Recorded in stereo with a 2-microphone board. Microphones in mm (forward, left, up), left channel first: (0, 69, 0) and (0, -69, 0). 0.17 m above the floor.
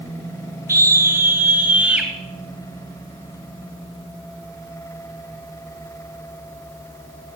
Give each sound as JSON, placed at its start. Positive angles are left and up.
{"t": 0.7, "sound": "a scream", "side_deg": -20, "distance_m": 2.0}